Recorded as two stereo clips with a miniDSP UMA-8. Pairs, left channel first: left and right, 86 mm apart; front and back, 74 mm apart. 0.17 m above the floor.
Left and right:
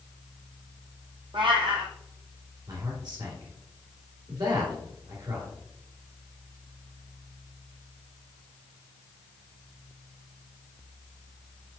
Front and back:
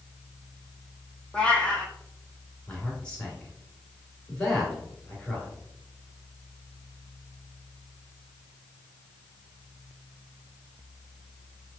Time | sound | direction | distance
1.3 | a cat meowing | 75° right | 0.9 m
2.7 | a man speaking | 75° right | 2.5 m